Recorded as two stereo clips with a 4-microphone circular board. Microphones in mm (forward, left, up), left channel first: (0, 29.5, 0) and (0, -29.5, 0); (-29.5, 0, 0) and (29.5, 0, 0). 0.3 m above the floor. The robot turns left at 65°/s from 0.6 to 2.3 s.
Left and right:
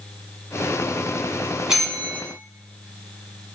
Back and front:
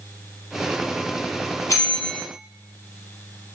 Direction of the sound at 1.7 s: 170° right.